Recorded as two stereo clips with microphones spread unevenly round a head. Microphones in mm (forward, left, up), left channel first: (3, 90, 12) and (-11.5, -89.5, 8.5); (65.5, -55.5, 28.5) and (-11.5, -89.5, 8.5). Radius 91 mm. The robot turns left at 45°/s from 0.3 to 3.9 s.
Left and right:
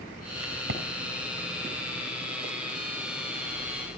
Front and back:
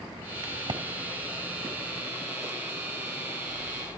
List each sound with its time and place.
0.4 s a crack: 115° right, 4 m; by 0.8 s 130° right, 4 m